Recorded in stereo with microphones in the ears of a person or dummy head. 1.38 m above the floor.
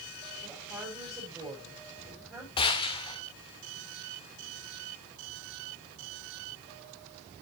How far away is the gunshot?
About 1.6 m.